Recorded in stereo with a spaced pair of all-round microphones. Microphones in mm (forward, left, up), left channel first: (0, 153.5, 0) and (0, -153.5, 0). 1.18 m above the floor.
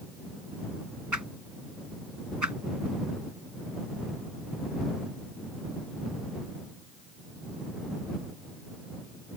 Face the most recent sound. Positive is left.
turn(degrees=-75)  # may be behind; listen again after turning